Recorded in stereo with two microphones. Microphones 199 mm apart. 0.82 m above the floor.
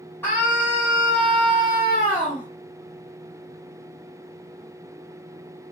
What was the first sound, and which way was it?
A scream, 10° left (ahead or behind).